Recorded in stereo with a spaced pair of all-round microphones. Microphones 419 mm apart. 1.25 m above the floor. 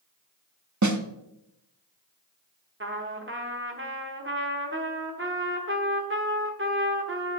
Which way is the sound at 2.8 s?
30° right (ahead or behind).